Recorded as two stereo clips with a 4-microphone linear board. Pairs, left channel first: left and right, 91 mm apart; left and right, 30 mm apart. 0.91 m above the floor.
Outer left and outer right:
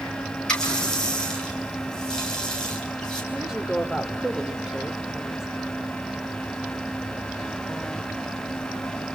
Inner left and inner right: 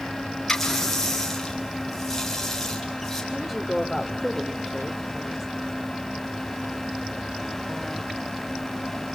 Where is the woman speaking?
5° right (ahead or behind), 2.5 m.